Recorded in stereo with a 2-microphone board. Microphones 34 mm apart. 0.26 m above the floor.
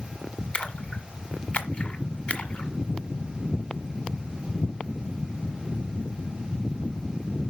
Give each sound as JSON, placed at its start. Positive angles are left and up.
{"t": 0.5, "sound": "a splash", "side_deg": 40, "distance_m": 1.6}